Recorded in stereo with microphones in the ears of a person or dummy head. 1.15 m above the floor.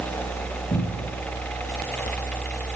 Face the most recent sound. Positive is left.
turn(degrees=40)  # may be behind; listen again after turning